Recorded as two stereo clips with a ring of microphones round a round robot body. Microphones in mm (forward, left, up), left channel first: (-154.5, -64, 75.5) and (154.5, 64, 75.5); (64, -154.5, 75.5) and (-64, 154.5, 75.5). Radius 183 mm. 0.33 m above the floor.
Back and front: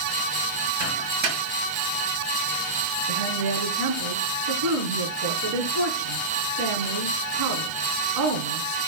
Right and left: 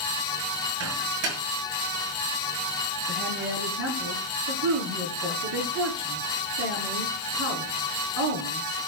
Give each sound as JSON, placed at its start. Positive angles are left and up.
{"t": 0.8, "sound": "a microwave", "azimuth_deg": 65, "distance_m": 5.5}
{"t": 3.1, "sound": "a woman speaking", "azimuth_deg": 60, "distance_m": 4.5}